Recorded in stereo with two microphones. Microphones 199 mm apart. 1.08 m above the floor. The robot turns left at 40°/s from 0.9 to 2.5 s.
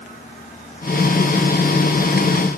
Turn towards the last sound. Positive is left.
No sound to turn to.